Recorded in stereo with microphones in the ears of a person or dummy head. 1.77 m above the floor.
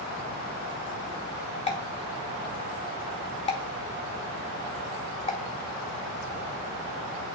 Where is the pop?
30° left (ahead or behind), 0.7 m.